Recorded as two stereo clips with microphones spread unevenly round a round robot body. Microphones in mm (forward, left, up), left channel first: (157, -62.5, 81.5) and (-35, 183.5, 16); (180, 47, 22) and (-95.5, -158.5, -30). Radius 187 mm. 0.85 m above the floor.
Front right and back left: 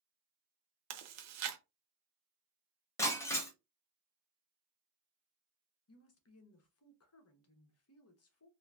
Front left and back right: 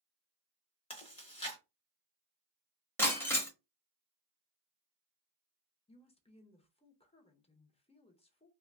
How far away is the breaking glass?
About 0.6 m.